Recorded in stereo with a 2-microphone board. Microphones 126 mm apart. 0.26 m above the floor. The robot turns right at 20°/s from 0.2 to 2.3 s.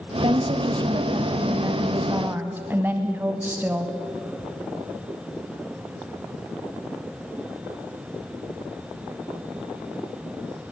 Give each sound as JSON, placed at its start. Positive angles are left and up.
{"t": 0.2, "sound": "a woman speaking", "azimuth_deg": -60, "distance_m": 1.5}